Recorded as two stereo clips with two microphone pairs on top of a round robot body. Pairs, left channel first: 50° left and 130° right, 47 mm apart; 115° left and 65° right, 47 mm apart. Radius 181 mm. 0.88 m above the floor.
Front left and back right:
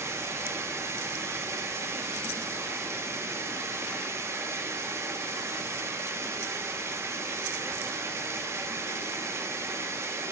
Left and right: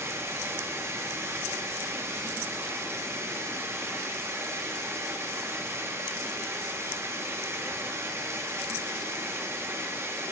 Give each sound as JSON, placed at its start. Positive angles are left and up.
{"t": 0.0, "sound": "running water", "azimuth_deg": -100, "distance_m": 0.9}